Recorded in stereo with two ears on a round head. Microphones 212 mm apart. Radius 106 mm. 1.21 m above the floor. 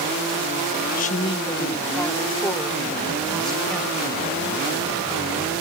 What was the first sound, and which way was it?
A woman speaking, 35° left (ahead or behind).